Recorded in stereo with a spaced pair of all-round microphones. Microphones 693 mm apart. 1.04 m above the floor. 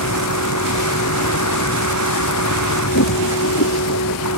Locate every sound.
0.0 s a vehicle: 25° left (ahead or behind)